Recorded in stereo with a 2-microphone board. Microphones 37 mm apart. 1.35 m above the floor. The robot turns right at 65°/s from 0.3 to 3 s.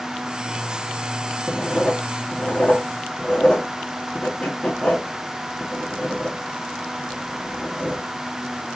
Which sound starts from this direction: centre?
Writing, at 1.5 s.